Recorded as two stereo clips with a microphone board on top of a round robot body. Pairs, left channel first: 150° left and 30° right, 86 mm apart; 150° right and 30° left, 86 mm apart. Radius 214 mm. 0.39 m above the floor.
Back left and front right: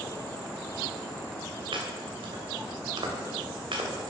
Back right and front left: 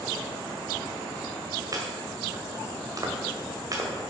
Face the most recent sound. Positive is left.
turn(degrees=-15)